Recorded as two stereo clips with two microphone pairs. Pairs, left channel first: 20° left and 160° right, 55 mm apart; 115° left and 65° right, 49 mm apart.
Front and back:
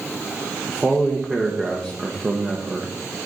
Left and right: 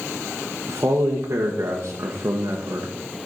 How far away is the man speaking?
About 1.1 m.